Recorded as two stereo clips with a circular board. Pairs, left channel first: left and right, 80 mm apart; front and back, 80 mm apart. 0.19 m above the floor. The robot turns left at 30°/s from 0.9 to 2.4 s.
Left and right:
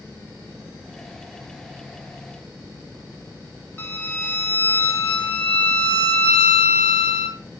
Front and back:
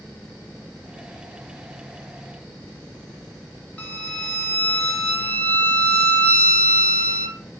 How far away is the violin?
About 0.7 m.